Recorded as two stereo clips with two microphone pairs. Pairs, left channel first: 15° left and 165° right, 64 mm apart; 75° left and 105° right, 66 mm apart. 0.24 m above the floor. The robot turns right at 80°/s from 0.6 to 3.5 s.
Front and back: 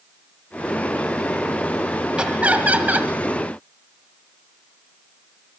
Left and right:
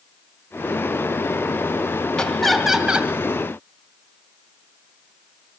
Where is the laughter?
140° left, 1.5 m; by 3.1 s 145° right, 1.5 m.